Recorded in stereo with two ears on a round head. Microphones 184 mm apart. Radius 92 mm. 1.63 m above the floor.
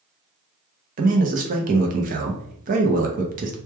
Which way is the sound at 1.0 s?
40° right (ahead or behind).